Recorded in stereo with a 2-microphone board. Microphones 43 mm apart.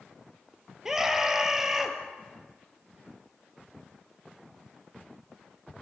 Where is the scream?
10° right (ahead or behind), 3 m.